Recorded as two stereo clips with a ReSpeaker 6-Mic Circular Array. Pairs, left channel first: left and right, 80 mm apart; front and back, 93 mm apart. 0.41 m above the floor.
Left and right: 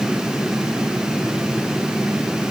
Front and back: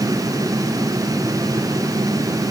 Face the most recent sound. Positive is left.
No sound to turn to.